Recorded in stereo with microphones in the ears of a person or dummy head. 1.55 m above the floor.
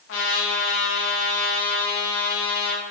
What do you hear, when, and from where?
0.1 s a trumpet: 75° left (ahead or behind), 2 m